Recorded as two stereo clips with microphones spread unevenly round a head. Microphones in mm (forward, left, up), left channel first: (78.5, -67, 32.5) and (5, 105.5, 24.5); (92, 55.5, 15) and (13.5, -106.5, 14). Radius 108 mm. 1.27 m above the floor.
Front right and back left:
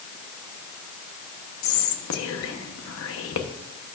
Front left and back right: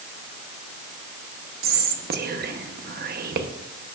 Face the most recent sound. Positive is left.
turn(degrees=-80)